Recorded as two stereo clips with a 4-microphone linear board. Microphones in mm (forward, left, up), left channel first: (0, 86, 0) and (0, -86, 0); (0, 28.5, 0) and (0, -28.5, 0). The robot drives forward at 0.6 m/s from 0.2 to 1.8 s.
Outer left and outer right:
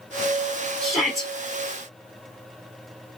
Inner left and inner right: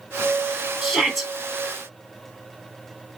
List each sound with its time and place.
0.8 s a shout: centre (ahead or behind), 1.2 m